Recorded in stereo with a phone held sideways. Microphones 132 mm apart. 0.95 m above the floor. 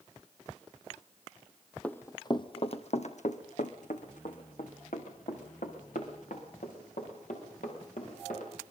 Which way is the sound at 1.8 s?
10° left (ahead or behind).